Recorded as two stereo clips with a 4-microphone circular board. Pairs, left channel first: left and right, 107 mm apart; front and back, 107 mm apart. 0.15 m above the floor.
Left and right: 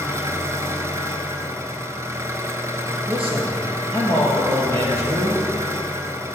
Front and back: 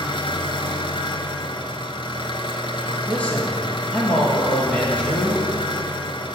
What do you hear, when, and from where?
0.0 s an engine running: 30° right, 0.7 m
3.1 s a man speaking: 75° right, 3 m